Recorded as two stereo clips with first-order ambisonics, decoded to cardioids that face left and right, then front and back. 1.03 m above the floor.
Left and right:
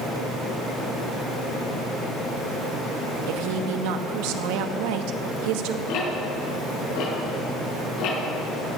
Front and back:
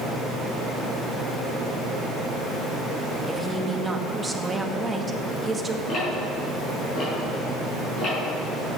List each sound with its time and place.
3.3 s a woman speaking: 100° right, 1.2 m
5.9 s ticking: 60° left, 6.5 m